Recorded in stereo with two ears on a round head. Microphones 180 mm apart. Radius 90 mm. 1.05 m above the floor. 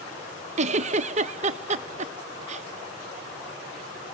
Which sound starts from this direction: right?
A giggle, at 0.6 s.